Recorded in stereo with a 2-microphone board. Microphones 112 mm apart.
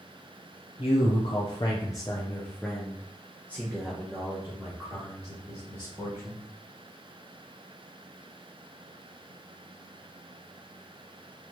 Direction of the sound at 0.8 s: 60° left (ahead or behind).